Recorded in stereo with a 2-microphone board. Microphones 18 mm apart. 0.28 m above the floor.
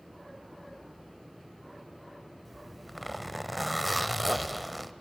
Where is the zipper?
5° right (ahead or behind), 0.6 m.